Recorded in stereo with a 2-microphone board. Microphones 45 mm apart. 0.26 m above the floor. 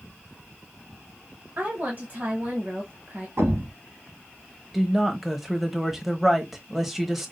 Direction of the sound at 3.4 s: 65° right (ahead or behind).